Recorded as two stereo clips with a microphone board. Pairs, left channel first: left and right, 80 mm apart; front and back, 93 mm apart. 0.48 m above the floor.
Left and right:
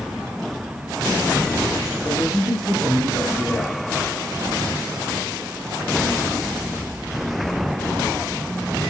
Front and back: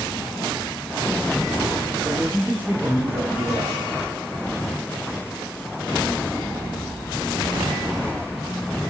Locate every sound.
2.0 s a man speaking: 130° left, 4 m